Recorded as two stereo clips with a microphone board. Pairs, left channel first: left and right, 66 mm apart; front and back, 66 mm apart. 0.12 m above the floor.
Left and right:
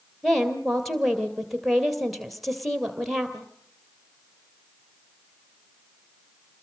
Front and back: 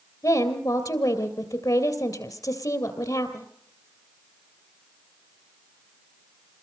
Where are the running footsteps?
No running footsteps in this recording.